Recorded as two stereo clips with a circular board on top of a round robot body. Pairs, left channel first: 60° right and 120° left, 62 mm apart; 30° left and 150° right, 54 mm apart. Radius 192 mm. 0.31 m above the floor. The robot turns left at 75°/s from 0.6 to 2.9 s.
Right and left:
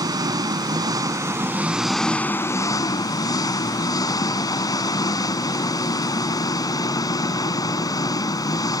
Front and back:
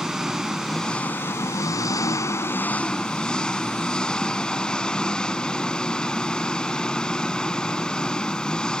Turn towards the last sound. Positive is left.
turn(degrees=-45)